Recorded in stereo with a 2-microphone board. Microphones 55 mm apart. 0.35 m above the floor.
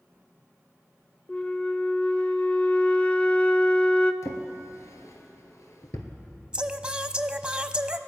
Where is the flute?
25° left (ahead or behind), 0.6 m.